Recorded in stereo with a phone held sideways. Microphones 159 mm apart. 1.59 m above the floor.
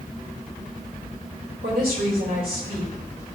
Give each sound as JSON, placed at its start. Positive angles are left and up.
{"t": 1.6, "sound": "a woman speaking", "side_deg": -85, "distance_m": 2.5}